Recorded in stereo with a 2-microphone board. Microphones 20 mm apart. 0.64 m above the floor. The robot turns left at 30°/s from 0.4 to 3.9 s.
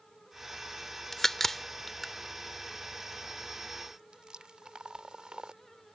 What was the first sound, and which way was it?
A crack, 25° left (ahead or behind).